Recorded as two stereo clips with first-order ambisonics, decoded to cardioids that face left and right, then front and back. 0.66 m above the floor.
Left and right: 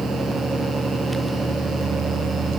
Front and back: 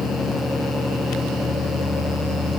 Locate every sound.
Only background noise.